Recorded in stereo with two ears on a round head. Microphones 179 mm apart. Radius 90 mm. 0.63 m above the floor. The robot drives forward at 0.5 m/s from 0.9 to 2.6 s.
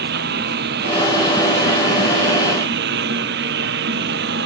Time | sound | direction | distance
0.0 | a lawn mower | 55° right (ahead or behind) | ?